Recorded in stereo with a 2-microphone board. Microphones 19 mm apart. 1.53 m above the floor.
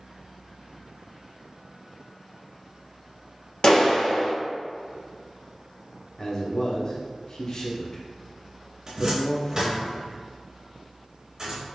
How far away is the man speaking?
About 0.9 m.